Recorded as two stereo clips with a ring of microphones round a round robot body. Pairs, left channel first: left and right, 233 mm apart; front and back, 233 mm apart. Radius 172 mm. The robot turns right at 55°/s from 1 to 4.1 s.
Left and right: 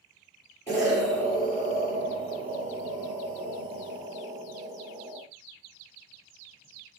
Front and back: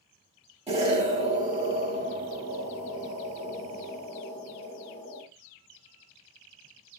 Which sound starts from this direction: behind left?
An explosion, at 0.7 s.